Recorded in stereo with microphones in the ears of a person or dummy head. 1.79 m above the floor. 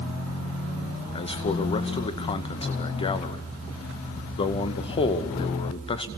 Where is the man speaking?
30° left (ahead or behind), 2 m.